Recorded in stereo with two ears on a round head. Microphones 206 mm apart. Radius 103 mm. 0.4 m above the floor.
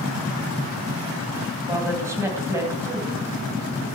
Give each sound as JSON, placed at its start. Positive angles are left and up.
{"t": 1.7, "sound": "a woman speaking", "side_deg": -10, "distance_m": 3.0}